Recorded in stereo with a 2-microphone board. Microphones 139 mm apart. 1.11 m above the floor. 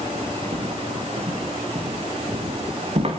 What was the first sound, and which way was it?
Footsteps, 45° right (ahead or behind).